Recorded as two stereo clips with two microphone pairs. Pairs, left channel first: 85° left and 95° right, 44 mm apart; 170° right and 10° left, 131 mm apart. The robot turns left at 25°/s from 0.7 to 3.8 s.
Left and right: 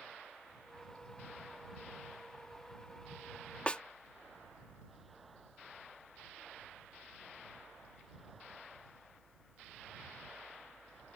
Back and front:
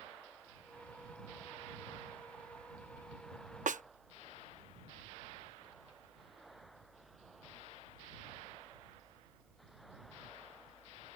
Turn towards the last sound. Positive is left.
turn(degrees=20)